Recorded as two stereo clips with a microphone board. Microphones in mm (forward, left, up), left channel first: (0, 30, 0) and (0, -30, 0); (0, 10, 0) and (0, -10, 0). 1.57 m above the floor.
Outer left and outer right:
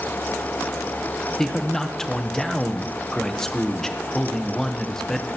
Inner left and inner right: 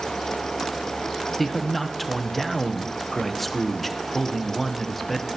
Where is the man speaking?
5° left (ahead or behind), 0.9 m.